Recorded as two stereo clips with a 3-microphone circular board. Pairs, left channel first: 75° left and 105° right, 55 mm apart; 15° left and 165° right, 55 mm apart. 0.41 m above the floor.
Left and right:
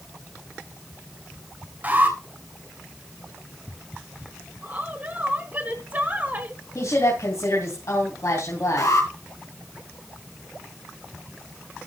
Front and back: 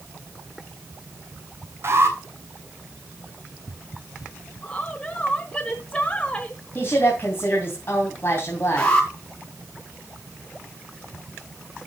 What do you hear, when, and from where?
1.8 s an alarm: 155° right, 3 m
4.6 s a woman speaking: 55° right, 1.4 m
6.8 s a woman speaking: 60° left, 3 m
8.8 s an alarm: 85° left, 4.5 m